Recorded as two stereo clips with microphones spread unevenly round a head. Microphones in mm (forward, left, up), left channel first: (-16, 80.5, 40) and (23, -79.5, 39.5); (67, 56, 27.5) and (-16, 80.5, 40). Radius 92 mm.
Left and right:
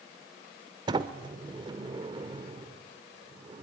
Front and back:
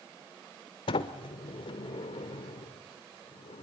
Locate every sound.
0.9 s a sliding door: 15° right, 1.0 m